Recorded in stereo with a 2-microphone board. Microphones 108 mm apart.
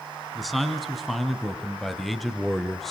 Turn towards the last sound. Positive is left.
turn(degrees=0)  # may be behind; listen again after turning